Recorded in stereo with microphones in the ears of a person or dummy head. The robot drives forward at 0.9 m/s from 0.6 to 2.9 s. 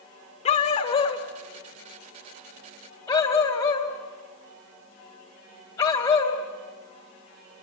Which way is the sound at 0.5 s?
35° left (ahead or behind).